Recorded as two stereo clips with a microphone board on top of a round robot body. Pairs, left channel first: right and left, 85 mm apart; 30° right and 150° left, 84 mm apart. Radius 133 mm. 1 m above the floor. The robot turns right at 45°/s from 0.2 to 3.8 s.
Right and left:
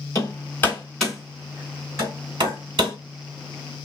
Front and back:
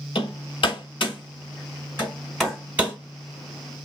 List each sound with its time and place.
0.1 s hammering: 45° right, 3 m; by 3.0 s 80° left, 3 m